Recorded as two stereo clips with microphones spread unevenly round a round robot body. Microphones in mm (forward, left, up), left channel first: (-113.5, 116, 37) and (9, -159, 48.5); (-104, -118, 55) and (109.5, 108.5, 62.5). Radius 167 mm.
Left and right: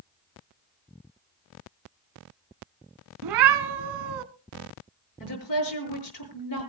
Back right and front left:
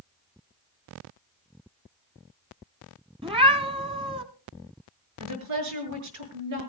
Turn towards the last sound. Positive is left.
turn(degrees=80)